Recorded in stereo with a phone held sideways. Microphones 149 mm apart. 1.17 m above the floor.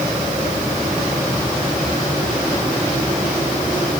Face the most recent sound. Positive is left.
No sound to turn to.